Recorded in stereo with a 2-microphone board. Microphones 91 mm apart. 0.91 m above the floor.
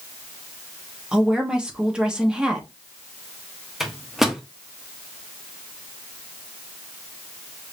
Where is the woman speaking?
10° right (ahead or behind), 1.0 m.